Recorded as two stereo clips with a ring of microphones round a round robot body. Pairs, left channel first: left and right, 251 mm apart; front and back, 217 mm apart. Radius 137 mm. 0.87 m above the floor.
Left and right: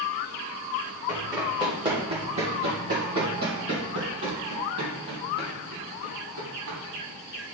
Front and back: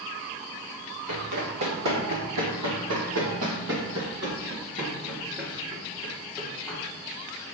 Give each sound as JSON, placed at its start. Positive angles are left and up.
{"t": 1.1, "sound": "running footsteps", "azimuth_deg": -165, "distance_m": 2.5}